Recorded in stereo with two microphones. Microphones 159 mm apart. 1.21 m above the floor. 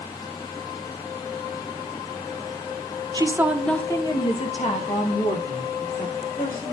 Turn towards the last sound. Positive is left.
turn(degrees=70)  # may be behind; listen again after turning